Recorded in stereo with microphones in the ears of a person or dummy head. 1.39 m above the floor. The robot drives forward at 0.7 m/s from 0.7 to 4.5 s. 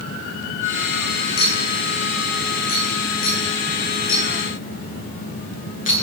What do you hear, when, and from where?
1.4 s a clink: 50° left (ahead or behind), 10 m; by 6.0 s 40° left (ahead or behind), 11.5 m